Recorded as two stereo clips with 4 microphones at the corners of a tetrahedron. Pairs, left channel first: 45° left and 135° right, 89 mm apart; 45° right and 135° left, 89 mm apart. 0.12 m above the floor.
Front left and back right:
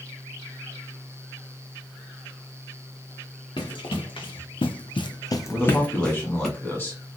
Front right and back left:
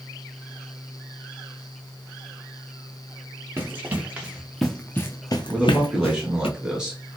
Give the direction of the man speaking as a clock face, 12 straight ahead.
10 o'clock.